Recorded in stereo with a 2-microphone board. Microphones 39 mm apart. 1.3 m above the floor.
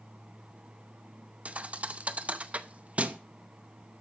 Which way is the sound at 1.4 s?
35° right (ahead or behind).